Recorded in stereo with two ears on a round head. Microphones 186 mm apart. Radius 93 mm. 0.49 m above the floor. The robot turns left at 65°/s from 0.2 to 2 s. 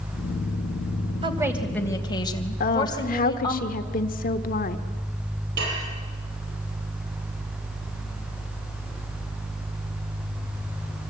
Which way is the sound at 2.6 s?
45° left (ahead or behind).